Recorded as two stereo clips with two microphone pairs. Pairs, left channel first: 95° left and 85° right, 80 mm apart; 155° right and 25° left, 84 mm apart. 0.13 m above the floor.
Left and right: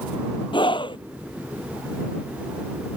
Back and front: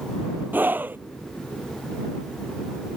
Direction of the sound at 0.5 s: 95° left.